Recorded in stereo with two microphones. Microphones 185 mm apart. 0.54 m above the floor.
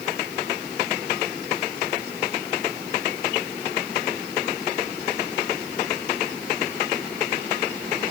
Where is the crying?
No crying in this recording.